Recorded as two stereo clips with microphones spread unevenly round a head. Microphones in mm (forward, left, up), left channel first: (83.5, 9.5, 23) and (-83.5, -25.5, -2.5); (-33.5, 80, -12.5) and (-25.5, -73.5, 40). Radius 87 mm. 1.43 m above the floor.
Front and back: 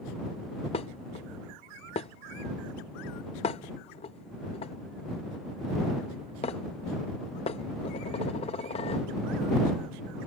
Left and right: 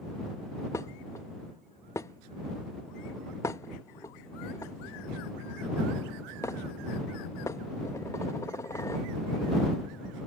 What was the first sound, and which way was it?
Dishes clattering, straight ahead.